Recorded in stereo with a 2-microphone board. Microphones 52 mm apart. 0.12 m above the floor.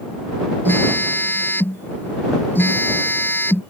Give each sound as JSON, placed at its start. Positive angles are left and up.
{"t": 0.7, "sound": "a phone buzzing", "side_deg": 45}